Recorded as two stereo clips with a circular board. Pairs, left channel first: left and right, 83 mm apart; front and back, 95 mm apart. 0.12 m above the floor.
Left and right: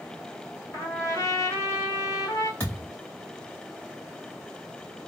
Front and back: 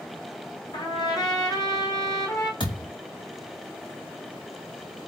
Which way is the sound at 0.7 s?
35° left.